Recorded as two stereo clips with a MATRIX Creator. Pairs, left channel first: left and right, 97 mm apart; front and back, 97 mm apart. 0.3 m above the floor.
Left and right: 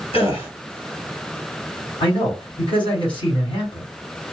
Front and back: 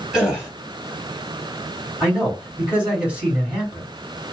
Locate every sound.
0.1 s a gasp: 95° left, 1.7 m
2.0 s a man speaking: 100° left, 1.9 m